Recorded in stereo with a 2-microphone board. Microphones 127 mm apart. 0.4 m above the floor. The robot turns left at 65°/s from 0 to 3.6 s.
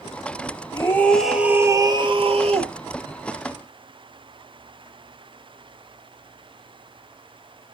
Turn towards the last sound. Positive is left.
turn(degrees=-155)